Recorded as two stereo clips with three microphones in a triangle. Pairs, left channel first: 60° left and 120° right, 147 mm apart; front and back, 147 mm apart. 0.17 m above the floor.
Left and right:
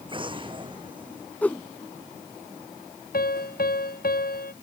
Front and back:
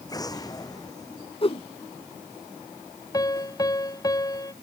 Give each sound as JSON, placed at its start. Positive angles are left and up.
{"t": 0.1, "sound": "an explosion", "azimuth_deg": -65}
{"t": 1.4, "sound": "a whoosh", "azimuth_deg": -15}
{"t": 3.1, "sound": "a piano", "azimuth_deg": 65}